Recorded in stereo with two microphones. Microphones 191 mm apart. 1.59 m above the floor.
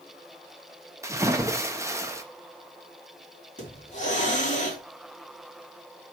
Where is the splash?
15° right (ahead or behind), 1.0 m.